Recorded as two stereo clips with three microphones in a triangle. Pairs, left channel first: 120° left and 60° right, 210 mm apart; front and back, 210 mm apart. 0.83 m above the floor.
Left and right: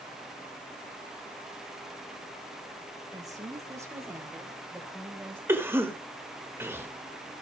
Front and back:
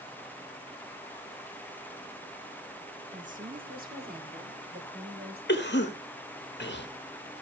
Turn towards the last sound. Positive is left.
turn(degrees=15)